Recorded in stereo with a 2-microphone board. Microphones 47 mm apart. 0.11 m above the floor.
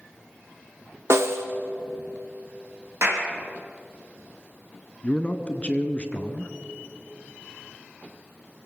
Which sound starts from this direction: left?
A man speaking, at 5.0 s.